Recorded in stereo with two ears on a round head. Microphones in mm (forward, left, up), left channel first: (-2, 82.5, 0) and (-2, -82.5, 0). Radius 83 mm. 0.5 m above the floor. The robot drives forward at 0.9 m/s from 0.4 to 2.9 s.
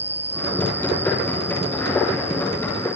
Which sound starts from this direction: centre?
An insect, at 0.0 s.